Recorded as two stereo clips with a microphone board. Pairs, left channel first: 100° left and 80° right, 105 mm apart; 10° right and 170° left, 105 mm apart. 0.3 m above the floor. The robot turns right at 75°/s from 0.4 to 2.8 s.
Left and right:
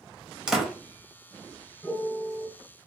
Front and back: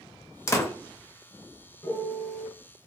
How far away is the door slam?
About 0.6 m.